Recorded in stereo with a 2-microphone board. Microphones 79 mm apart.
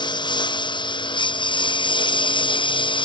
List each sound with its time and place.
0.0 s a lawn mower: 70° left (ahead or behind); by 3.0 s 85° left